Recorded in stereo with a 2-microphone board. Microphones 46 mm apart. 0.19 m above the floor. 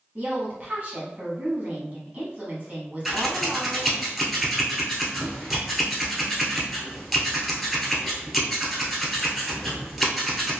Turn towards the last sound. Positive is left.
turn(degrees=0)  # may be behind; listen again after turning